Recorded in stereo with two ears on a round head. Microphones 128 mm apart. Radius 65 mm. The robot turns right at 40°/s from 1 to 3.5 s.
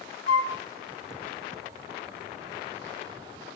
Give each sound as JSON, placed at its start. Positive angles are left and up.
{"t": 0.3, "sound": "a flute", "side_deg": -75, "distance_m": 1.9}